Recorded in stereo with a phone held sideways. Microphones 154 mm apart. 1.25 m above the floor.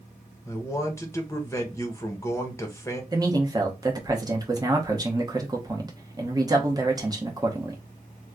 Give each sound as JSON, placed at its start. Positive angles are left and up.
{"t": 0.5, "sound": "a man speaking", "side_deg": 20, "distance_m": 0.9}
{"t": 3.1, "sound": "a man speaking", "side_deg": -25, "distance_m": 1.0}